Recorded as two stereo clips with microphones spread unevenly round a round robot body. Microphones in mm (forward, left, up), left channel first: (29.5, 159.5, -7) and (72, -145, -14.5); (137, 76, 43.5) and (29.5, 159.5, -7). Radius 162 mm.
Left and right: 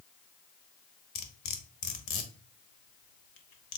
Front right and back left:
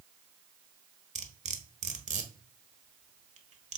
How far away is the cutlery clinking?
About 1.4 m.